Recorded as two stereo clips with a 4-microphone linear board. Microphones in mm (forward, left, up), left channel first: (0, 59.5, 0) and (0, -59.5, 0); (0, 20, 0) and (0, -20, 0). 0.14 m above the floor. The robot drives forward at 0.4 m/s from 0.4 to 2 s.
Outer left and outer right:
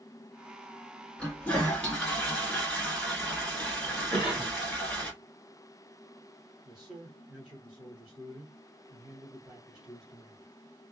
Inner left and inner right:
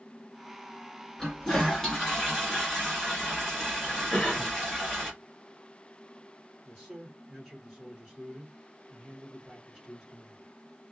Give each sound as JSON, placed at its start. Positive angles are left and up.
{"t": 1.2, "sound": "a toilet flushing", "side_deg": 10, "distance_m": 1.2}
{"t": 4.1, "sound": "a cough", "side_deg": 40, "distance_m": 1.4}
{"t": 6.7, "sound": "a man speaking", "side_deg": -5, "distance_m": 1.4}